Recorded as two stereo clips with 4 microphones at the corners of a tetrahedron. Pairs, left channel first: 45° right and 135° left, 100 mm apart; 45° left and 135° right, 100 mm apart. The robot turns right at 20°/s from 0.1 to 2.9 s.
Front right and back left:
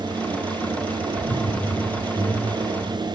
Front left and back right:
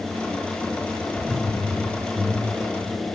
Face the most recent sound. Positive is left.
turn(degrees=0)